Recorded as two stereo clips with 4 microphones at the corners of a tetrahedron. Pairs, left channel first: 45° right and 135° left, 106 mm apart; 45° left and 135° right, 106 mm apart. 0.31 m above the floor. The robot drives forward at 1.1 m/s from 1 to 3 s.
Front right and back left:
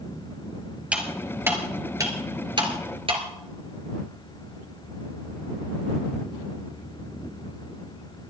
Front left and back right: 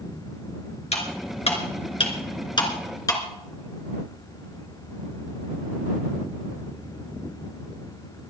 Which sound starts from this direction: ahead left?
Cutlery clinking, at 0.9 s.